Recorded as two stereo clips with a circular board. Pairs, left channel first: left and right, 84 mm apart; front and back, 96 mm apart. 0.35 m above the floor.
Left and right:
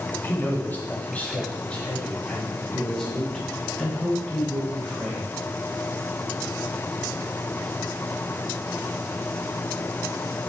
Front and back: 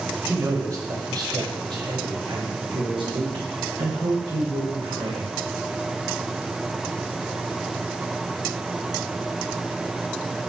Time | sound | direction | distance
0.2 | a man speaking | 135° left | 1.4 m